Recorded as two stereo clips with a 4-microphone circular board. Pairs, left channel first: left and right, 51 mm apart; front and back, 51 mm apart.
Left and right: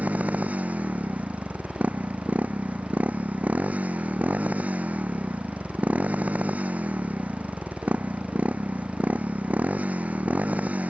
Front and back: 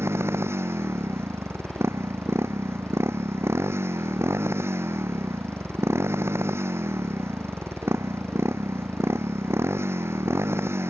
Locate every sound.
0.0 s a motorcycle: 150° right